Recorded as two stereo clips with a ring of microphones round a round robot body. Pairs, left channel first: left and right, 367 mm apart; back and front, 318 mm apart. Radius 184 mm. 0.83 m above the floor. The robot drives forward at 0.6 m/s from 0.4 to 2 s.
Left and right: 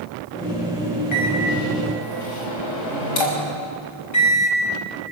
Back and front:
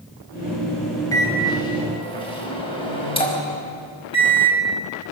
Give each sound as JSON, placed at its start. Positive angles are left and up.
{"t": 1.1, "sound": "a microwave", "azimuth_deg": 100, "distance_m": 5.0}